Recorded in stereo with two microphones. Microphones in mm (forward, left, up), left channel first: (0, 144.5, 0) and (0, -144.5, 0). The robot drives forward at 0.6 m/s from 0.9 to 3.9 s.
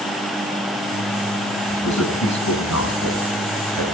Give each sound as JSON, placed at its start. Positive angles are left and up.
{"t": 1.7, "sound": "a man speaking", "side_deg": 75, "distance_m": 5.5}